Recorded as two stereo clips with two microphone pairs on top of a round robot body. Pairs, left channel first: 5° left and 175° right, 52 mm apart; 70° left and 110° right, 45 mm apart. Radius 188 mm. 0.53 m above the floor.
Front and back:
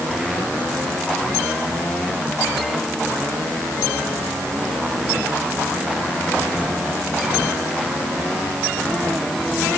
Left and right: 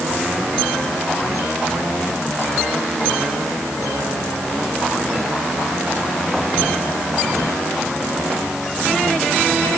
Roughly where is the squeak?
No squeak in this recording.